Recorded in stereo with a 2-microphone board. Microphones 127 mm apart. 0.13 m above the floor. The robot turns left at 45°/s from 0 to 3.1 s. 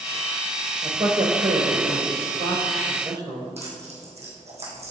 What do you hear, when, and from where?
0.8 s a man speaking: 30° right (ahead or behind), 2 m; by 3.5 s 35° right (ahead or behind), 2 m
3.6 s tearing paper: 55° right (ahead or behind), 3 m